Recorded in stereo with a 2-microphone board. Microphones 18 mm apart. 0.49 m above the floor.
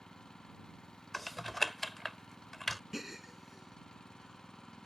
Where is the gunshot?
No gunshot in this recording.